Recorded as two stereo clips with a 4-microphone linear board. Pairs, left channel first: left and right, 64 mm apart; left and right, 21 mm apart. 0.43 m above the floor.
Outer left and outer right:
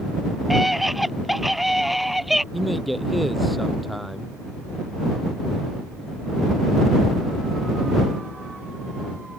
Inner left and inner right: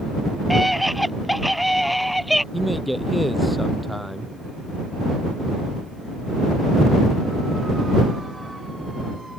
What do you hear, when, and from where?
0.5 s a scream: centre (ahead or behind); by 2.4 s 5° right (ahead or behind)
2.5 s a man speaking: centre (ahead or behind)